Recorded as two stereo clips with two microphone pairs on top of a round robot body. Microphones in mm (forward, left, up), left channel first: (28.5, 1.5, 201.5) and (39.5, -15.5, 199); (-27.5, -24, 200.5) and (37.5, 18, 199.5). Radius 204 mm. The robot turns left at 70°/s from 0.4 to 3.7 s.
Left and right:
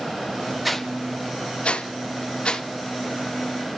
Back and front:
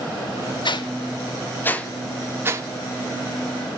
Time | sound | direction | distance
0.7 | a whoosh | 140° right | 2 m